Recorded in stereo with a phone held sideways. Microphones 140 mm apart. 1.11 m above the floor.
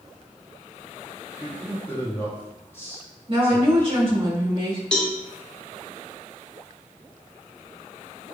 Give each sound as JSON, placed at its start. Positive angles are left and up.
{"t": 1.4, "sound": "a man speaking", "side_deg": 15, "distance_m": 0.8}
{"t": 3.3, "sound": "a woman speaking", "side_deg": -40, "distance_m": 1.6}
{"t": 4.9, "sound": "a cowbell", "side_deg": 5, "distance_m": 0.6}